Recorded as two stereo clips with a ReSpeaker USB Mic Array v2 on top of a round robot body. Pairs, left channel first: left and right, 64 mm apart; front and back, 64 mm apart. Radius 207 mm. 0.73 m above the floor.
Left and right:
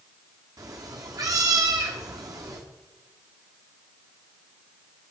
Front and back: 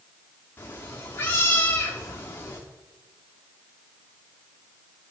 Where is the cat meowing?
60° right, 0.5 m.